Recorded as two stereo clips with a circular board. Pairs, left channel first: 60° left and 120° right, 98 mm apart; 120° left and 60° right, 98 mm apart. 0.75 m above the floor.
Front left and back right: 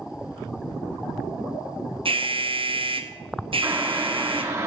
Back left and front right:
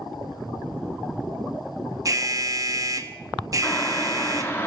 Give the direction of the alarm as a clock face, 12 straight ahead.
4 o'clock.